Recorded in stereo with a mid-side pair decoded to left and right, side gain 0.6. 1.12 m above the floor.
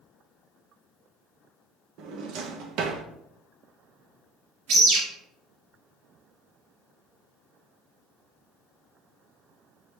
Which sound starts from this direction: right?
A drawer, at 2.0 s.